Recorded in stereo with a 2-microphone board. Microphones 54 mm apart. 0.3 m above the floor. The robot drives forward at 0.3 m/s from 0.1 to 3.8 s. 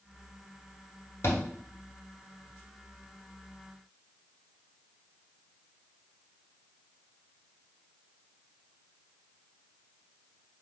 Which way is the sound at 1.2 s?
50° left (ahead or behind).